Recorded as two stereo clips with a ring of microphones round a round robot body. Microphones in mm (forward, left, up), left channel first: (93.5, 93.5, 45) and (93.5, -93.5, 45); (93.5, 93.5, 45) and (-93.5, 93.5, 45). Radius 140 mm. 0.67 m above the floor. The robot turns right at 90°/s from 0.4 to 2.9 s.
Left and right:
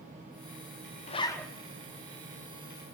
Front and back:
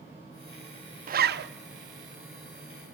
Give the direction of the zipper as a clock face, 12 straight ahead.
7 o'clock.